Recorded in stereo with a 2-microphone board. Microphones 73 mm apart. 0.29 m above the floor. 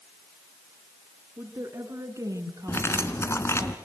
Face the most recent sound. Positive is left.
turn(degrees=40)  # may be behind; listen again after turning